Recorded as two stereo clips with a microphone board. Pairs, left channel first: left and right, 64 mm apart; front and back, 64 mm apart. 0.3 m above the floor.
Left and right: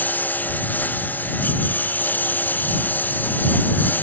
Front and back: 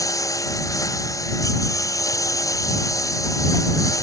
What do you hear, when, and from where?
0.0 s a lawn mower: 30° left